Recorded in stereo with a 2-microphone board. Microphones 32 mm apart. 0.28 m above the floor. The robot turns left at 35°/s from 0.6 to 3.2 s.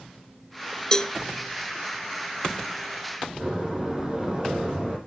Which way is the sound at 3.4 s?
25° right (ahead or behind).